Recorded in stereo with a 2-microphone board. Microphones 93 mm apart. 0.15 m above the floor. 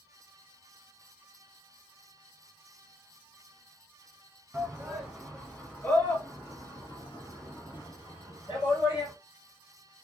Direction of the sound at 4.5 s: 15° right (ahead or behind).